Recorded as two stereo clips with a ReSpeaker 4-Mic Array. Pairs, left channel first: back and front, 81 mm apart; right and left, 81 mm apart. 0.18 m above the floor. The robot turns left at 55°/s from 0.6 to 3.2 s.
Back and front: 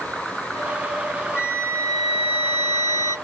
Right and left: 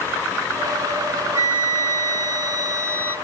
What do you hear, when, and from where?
1.3 s a flute: 140° left, 0.8 m; by 3.2 s 40° left, 0.8 m